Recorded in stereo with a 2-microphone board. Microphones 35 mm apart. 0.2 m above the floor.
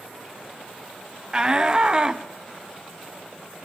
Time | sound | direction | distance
1.3 | a shout | 20° right (ahead or behind) | 1.3 m